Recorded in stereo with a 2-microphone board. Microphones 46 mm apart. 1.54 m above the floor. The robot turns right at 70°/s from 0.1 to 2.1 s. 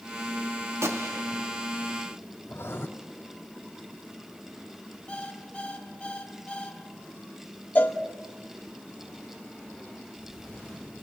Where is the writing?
55° left (ahead or behind), 2.5 m.